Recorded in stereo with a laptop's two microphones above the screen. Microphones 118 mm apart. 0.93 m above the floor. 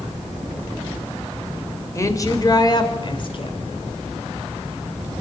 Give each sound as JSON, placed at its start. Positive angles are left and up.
{"t": 1.9, "sound": "a woman speaking", "side_deg": 25, "distance_m": 4.0}